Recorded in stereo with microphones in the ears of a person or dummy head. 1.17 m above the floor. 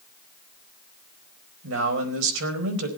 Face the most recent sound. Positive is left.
turn(degrees=-80)